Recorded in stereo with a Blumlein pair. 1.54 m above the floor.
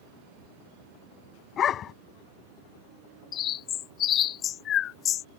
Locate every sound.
1.6 s a dog barking: 25° left
3.3 s a bird: 30° left